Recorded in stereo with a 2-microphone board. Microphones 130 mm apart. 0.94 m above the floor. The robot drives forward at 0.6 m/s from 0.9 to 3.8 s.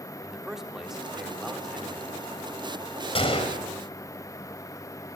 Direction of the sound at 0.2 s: 5° right (ahead or behind).